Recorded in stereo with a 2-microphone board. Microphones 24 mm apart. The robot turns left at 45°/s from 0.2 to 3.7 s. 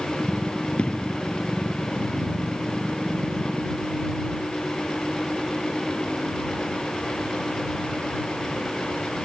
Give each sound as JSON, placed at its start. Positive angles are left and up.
{"t": 0.8, "sound": "an explosion", "side_deg": 50}